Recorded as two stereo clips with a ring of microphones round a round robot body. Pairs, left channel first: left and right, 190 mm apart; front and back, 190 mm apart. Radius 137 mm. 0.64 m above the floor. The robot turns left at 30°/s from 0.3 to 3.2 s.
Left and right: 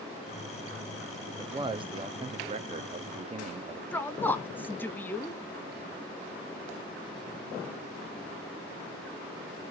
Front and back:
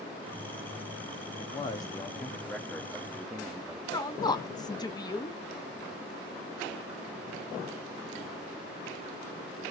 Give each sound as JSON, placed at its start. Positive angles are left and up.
{"t": 1.4, "sound": "a man speaking", "azimuth_deg": -40, "distance_m": 0.7}
{"t": 3.9, "sound": "a woman speaking", "azimuth_deg": 25, "distance_m": 0.9}